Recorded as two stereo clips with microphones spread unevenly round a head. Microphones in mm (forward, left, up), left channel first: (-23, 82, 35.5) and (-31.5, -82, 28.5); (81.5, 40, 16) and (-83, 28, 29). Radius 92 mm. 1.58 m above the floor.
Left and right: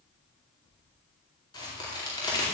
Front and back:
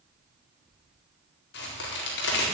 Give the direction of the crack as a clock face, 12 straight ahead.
11 o'clock.